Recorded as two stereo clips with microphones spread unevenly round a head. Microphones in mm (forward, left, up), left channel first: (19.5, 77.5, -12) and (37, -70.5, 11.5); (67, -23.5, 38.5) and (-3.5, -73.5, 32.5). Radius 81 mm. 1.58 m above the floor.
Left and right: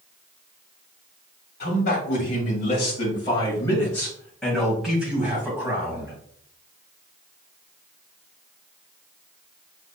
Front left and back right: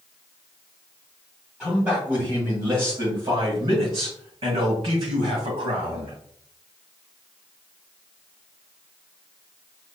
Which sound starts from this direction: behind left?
A man speaking, at 1.6 s.